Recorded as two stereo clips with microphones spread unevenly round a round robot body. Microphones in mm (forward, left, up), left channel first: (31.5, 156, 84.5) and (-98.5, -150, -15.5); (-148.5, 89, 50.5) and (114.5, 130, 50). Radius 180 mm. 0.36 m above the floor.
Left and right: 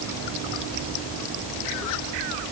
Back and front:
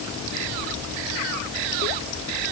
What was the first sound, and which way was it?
Only background noise.